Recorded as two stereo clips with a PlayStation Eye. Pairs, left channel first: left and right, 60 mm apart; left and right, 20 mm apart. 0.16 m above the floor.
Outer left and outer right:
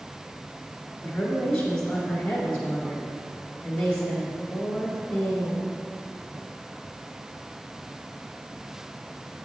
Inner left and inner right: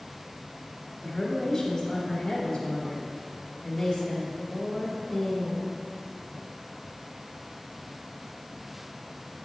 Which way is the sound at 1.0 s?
15° left (ahead or behind).